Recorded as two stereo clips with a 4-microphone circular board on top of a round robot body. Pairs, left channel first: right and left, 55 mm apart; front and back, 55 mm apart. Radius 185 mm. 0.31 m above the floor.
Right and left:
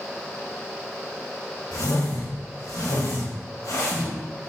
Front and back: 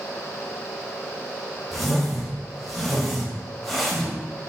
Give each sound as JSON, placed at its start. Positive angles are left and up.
{"t": 1.7, "sound": "a whoosh", "azimuth_deg": -90, "distance_m": 1.2}